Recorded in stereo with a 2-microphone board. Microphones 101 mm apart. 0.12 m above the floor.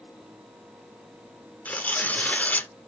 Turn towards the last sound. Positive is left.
turn(degrees=15)  # may be behind; listen again after turning